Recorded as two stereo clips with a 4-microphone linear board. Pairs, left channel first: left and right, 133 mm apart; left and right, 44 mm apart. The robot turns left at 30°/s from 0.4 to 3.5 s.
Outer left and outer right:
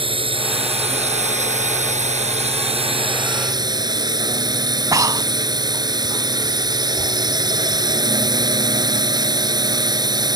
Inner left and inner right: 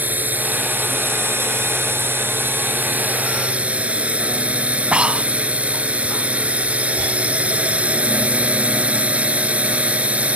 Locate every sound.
0.0 s a drone: 50° right; by 10.4 s 145° right
4.9 s breathing: 25° right (ahead or behind)